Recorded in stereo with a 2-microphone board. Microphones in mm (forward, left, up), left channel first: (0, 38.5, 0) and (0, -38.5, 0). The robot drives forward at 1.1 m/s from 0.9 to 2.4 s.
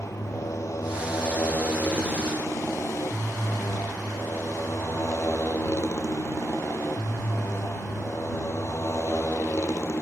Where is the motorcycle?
40° left (ahead or behind); by 10.0 s 35° left (ahead or behind).